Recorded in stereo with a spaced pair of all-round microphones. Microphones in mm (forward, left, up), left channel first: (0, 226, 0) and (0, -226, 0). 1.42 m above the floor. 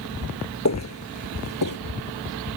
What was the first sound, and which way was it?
Footsteps, 35° left (ahead or behind).